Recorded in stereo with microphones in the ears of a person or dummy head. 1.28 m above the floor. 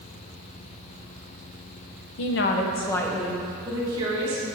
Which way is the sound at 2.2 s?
70° left (ahead or behind).